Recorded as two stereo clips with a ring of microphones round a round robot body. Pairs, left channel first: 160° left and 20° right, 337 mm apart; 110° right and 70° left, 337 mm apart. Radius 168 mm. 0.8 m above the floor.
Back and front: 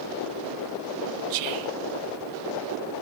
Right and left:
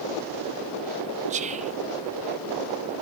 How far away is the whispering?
About 0.9 m.